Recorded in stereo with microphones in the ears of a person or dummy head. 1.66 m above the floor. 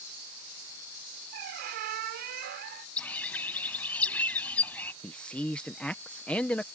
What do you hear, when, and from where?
1.3 s a squeak: 50° right (ahead or behind)
3.0 s a bird: 5° left (ahead or behind)
5.0 s a man speaking: 10° left (ahead or behind)